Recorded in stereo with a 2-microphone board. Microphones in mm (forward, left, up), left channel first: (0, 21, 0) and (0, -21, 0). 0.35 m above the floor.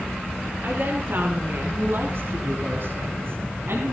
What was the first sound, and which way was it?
A woman speaking, 45° right (ahead or behind).